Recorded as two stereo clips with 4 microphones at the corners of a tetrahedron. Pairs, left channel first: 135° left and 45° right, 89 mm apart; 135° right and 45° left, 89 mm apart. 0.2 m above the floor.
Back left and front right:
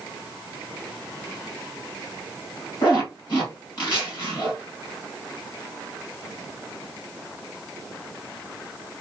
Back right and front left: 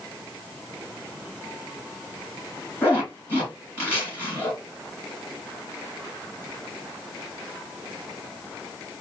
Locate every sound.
2.8 s a zipper: 160° left, 2.5 m